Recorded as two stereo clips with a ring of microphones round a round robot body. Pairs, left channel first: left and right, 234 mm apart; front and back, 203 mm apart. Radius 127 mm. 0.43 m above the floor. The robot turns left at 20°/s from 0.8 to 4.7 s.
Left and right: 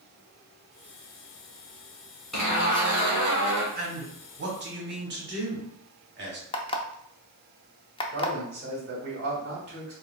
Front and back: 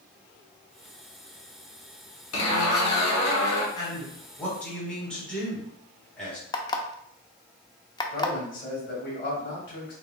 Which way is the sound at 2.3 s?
Straight ahead.